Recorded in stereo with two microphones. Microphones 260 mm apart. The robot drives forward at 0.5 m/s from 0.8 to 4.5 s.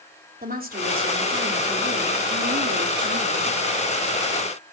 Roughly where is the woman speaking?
Right.